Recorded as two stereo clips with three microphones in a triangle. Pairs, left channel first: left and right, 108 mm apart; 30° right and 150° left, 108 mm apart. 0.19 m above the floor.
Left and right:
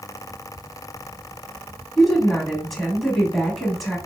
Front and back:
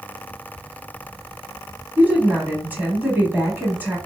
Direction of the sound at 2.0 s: 175° left.